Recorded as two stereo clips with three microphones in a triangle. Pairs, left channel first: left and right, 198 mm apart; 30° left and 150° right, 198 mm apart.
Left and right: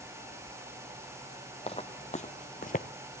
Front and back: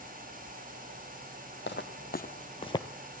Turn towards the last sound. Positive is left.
turn(degrees=95)